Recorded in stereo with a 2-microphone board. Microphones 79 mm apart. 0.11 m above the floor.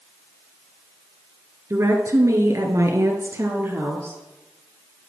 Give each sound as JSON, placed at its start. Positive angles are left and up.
{"t": 1.7, "sound": "a woman speaking", "side_deg": -40, "distance_m": 1.8}